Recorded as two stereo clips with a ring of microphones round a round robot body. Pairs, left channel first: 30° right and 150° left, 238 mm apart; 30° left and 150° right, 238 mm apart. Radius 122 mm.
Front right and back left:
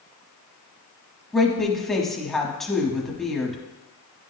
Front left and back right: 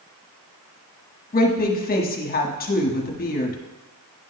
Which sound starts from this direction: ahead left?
A woman speaking, at 1.3 s.